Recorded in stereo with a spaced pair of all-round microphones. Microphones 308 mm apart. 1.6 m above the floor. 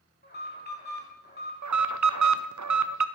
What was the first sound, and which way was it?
An alarm, 30° left (ahead or behind).